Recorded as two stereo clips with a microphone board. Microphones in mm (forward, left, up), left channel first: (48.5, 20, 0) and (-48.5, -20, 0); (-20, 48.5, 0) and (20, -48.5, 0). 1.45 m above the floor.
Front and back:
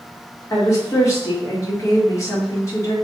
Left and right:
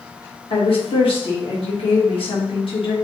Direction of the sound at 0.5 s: 80° left.